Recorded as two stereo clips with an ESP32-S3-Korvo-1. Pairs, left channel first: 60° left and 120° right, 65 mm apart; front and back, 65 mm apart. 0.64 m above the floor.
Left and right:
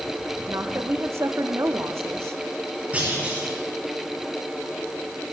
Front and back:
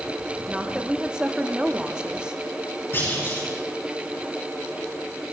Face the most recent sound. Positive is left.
turn(degrees=-50)